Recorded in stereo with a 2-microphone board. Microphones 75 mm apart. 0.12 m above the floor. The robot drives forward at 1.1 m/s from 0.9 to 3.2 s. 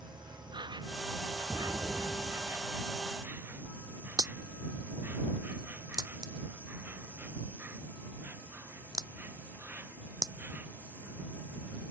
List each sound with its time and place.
0.0 s an insect: 90° right; by 11.9 s 25° right (ahead or behind)
1.5 s an explosion: 60° right (ahead or behind); by 2.7 s 45° right (ahead or behind)
4.2 s a crack: 60° right (ahead or behind)